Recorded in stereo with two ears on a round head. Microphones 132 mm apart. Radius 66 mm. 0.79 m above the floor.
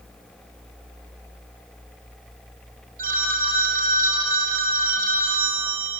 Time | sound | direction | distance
3.0 | a phone ringing | 65° right (ahead or behind) | 1.7 m